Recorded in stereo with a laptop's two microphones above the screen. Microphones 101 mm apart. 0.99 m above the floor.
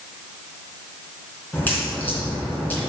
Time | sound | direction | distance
1.5 | a crack | 20° left (ahead or behind) | 3 m